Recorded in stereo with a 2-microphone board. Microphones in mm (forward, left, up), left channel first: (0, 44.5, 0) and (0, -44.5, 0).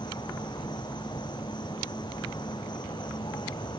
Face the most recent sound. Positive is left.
turn(degrees=55)  # may be behind; listen again after turning